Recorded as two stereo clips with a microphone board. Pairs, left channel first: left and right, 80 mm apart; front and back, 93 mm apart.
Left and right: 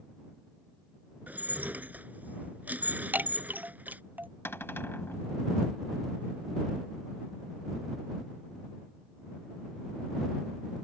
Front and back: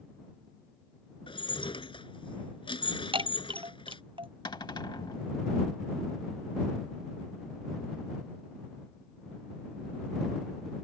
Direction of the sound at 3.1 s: 155° right.